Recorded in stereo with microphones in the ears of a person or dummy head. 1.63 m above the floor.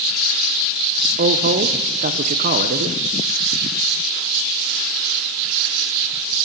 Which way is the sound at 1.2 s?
45° right (ahead or behind).